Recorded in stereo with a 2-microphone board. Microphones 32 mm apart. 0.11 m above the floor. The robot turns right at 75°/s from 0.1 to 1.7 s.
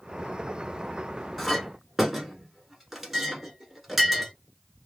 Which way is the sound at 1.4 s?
Centre (ahead or behind).